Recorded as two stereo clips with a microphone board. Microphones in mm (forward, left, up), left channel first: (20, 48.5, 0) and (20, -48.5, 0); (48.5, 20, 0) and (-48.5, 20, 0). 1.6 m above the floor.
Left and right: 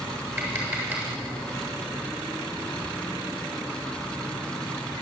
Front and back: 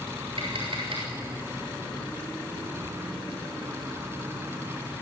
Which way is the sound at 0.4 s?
155° right.